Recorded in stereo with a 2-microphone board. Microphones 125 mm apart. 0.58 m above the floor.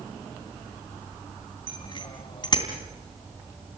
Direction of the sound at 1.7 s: 40° left (ahead or behind).